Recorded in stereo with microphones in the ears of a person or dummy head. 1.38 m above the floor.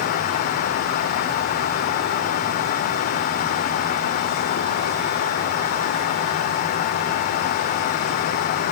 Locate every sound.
Only background noise.